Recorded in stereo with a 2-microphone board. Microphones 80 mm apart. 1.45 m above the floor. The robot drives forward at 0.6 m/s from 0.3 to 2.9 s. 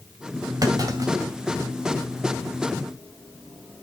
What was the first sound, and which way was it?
A clunk, 50° right (ahead or behind).